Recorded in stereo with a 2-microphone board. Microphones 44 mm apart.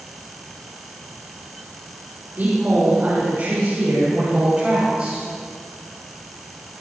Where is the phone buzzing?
No phone buzzing in this recording.